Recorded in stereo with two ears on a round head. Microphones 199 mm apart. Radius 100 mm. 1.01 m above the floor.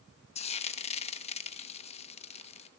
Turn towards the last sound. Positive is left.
turn(degrees=30)  # may be behind; listen again after turning